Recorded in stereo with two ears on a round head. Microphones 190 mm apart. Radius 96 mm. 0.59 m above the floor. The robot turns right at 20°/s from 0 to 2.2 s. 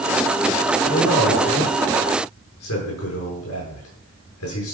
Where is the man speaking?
55° left (ahead or behind), 9 m; by 4.7 s 80° left, 9 m.